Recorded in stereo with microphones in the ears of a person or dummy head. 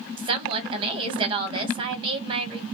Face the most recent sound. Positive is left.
turn(degrees=-30)  # may be behind; listen again after turning